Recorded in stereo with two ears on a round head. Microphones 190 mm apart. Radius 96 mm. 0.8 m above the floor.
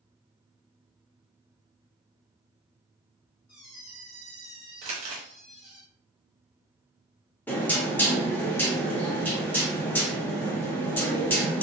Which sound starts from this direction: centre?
Knocking, at 7.5 s.